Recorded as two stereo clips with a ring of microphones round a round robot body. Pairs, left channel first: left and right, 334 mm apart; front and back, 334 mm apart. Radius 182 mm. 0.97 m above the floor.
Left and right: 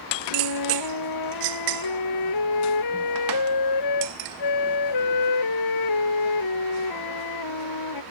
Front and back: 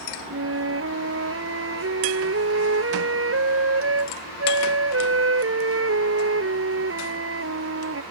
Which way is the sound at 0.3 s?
130° left.